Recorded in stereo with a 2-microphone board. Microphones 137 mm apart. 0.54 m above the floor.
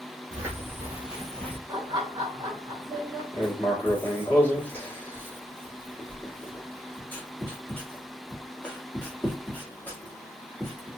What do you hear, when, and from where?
0.3 s footsteps: 20° right (ahead or behind), 1.6 m; by 1.6 s 20° left (ahead or behind), 0.7 m
1.7 s laughter: 30° right (ahead or behind), 0.9 m
3.3 s writing: 10° left (ahead or behind), 1.2 m